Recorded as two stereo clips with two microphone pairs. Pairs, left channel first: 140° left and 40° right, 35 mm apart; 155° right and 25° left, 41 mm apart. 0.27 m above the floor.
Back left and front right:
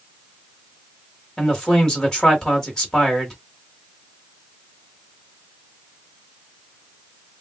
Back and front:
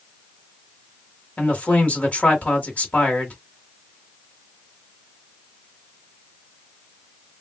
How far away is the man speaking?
About 1.6 m.